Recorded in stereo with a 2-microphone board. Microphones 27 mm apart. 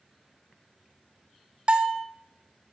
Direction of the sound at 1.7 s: 45° right (ahead or behind).